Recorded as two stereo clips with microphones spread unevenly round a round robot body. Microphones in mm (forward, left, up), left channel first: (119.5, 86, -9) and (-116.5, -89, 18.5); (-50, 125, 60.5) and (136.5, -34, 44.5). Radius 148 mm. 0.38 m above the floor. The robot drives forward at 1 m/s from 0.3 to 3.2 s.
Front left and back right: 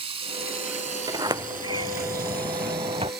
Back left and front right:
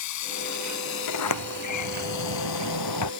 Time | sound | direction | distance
0.0 | running water | 145° left | ?
1.1 | a sliding door | 140° left | ?